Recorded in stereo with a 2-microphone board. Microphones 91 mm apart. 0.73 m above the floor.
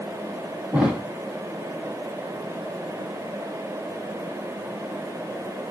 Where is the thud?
10° right (ahead or behind), 2 m.